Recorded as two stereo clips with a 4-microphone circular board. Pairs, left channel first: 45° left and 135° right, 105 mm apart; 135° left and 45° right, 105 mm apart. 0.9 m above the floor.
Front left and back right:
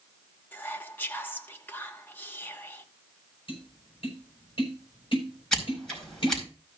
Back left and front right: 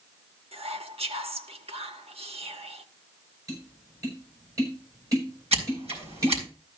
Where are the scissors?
40° right, 4.5 m.